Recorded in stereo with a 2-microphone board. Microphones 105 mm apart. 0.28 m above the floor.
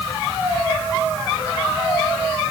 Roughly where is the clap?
No clap in this recording.